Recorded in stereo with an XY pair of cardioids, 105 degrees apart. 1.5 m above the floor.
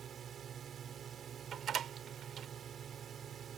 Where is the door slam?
55° right.